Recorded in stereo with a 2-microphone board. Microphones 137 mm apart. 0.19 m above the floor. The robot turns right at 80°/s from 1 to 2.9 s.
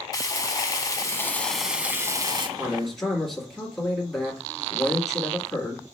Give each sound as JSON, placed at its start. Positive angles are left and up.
{"t": 0.1, "sound": "frying", "azimuth_deg": 130, "distance_m": 0.8}
{"t": 2.6, "sound": "a man speaking", "side_deg": -15, "distance_m": 1.7}